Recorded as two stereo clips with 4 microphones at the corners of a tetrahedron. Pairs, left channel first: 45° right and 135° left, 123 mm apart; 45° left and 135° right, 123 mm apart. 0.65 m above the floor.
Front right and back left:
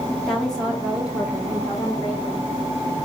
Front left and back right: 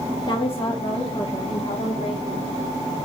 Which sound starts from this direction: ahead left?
A woman speaking, at 0.3 s.